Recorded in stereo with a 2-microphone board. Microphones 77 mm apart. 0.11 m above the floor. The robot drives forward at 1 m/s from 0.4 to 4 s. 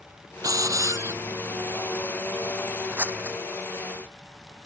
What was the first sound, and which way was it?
A hiss, 45° right (ahead or behind).